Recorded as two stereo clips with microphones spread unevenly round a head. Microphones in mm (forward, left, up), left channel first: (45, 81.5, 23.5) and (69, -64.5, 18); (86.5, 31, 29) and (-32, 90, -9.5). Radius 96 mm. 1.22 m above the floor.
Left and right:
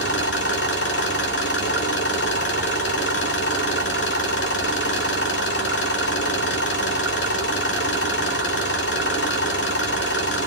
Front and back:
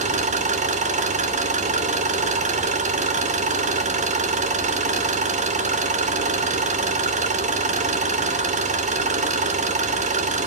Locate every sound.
0.0 s an engine running: 120° left, 2.5 m